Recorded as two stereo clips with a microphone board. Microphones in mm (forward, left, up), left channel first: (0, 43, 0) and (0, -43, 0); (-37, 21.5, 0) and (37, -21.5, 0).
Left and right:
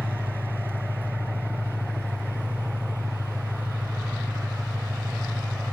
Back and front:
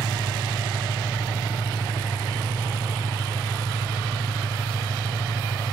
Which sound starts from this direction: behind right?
An engine running, at 0.0 s.